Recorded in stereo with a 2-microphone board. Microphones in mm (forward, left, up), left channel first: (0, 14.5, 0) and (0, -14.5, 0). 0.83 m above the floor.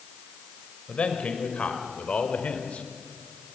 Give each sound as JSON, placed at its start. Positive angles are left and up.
{"t": 0.9, "sound": "a man speaking", "side_deg": 40, "distance_m": 3.5}